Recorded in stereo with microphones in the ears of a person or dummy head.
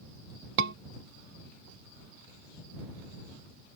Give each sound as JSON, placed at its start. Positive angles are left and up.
{"t": 0.6, "sound": "a scream", "side_deg": -60}